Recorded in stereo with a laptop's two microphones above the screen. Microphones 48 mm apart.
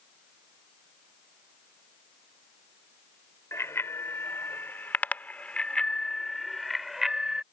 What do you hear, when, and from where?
3.5 s a bicycle bell: 70° left (ahead or behind); by 7.4 s 10° right (ahead or behind)